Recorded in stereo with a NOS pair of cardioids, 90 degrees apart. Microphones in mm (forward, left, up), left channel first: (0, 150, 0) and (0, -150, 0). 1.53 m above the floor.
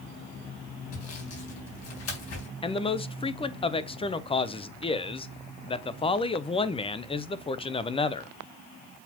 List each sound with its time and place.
0.9 s sawing: 55° left, 4 m
2.6 s a man speaking: 20° left, 0.8 m